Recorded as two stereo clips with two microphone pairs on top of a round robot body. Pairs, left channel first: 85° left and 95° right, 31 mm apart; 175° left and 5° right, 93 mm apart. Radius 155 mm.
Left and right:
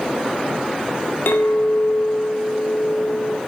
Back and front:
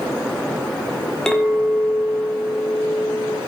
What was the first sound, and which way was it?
A clink, 90° left.